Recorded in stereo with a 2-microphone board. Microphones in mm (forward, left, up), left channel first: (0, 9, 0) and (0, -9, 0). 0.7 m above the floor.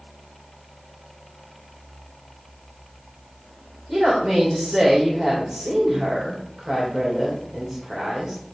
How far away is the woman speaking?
About 3 m.